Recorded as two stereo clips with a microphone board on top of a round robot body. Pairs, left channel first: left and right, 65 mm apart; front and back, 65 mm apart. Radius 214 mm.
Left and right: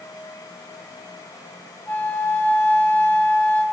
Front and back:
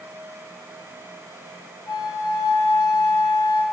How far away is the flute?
About 1.5 m.